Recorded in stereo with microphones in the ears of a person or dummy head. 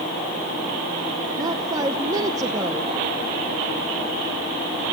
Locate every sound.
1.4 s a woman speaking: 20° right (ahead or behind), 0.9 m